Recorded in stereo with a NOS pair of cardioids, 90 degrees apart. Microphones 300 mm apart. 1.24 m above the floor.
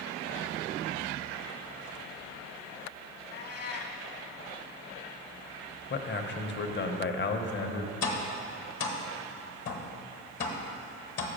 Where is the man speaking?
35° left, 0.8 m.